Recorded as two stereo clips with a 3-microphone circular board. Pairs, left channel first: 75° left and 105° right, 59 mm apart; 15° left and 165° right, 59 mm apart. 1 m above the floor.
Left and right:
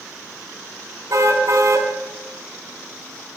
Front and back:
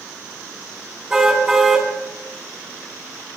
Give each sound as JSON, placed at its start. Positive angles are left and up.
{"t": 1.1, "sound": "a car horn", "azimuth_deg": -85, "distance_m": 4.0}